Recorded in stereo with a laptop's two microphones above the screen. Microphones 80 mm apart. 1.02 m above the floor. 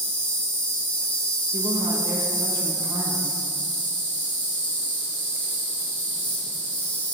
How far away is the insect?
About 1.3 m.